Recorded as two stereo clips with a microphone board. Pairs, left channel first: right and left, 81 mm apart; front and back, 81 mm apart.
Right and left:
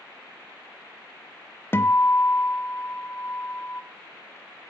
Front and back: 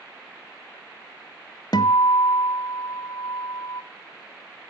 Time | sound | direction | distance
1.7 | a guitar | 30° right | 0.9 m